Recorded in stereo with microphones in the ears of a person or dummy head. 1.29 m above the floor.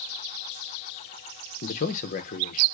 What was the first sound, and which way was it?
A man speaking, 45° left (ahead or behind).